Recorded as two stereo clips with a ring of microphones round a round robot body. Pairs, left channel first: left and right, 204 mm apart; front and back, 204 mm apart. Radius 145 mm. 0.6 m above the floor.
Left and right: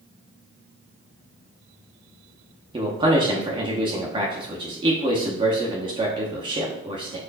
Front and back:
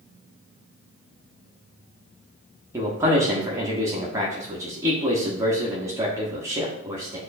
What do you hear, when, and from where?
2.7 s a man speaking: 120° right, 0.8 m